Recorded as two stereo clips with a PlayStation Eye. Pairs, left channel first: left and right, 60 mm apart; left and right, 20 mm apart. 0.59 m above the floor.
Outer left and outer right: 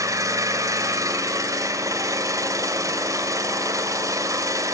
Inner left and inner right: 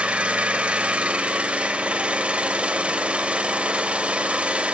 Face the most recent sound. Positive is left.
turn(degrees=-70)  # may be behind; listen again after turning